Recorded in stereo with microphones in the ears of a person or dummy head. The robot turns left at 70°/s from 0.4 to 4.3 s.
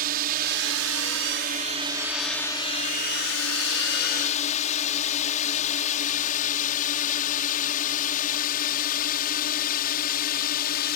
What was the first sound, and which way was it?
A drone, 50° right (ahead or behind).